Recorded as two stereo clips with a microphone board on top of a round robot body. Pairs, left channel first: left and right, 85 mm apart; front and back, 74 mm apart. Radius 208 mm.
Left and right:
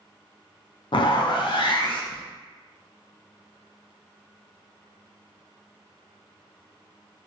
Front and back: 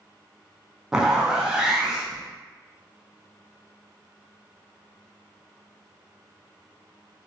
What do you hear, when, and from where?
0.9 s a zipper: 100° left, 0.5 m